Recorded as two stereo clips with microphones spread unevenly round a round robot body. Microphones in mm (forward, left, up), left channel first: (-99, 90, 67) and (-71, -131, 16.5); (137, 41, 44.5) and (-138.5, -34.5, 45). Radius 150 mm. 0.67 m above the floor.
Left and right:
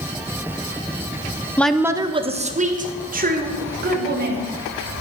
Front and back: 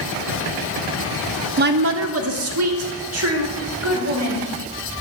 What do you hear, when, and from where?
1.6 s a woman speaking: 165° right, 0.5 m; by 4.5 s 125° right, 2.5 m